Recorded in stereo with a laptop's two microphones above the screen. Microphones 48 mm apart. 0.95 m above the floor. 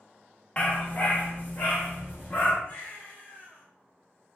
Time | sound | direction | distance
0.6 | a dog barking | 25° left (ahead or behind) | 0.5 m
2.6 | a baby crying | 35° left (ahead or behind) | 1.0 m